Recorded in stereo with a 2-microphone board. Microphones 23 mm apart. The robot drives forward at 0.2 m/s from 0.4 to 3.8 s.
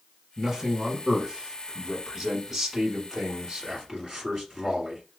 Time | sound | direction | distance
0.4 | a man speaking | 15° right (ahead or behind) | 1.2 m